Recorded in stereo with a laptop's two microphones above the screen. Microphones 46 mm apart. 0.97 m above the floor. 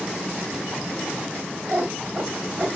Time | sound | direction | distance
1.7 | a cat meowing | 45° right (ahead or behind) | 1.4 m